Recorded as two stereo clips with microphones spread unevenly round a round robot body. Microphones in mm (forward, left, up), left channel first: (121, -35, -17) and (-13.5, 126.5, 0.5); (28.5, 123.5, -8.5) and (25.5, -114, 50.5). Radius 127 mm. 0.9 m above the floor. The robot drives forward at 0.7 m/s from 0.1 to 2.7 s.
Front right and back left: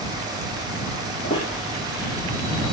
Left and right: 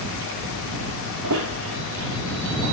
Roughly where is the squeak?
Behind right.